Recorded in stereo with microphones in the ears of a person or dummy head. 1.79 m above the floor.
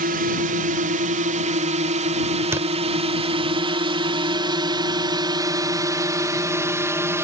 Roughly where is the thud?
Centre.